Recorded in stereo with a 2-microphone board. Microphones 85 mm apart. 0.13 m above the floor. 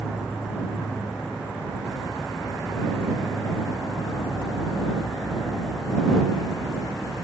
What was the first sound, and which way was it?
An insect, 5° right (ahead or behind).